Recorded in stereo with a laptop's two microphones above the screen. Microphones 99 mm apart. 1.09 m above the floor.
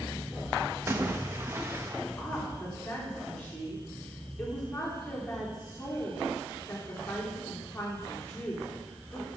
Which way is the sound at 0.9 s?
25° right (ahead or behind).